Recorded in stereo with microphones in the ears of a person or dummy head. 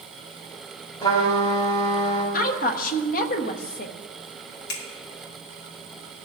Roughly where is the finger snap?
Left.